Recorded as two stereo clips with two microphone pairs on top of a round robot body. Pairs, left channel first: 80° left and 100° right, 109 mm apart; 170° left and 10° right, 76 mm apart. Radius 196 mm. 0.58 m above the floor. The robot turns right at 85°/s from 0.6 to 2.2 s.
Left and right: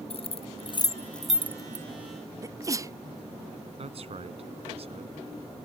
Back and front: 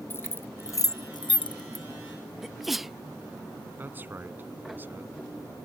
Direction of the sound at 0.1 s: 115° left.